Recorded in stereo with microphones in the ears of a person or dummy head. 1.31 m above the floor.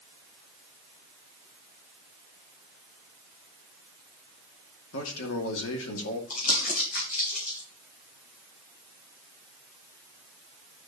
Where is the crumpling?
50° left (ahead or behind), 4 m.